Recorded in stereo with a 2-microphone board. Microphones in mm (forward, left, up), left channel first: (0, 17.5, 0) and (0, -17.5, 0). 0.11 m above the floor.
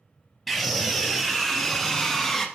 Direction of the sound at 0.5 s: 5° left (ahead or behind).